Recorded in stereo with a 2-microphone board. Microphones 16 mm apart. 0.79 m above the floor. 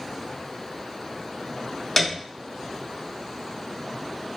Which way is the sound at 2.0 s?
5° left (ahead or behind).